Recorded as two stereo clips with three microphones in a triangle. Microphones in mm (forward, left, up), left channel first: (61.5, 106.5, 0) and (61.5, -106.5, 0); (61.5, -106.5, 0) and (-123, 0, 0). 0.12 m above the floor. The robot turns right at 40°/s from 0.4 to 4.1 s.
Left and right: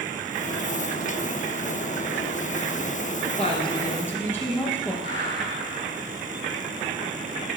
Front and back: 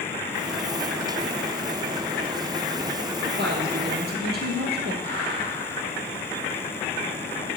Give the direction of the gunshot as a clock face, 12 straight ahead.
9 o'clock.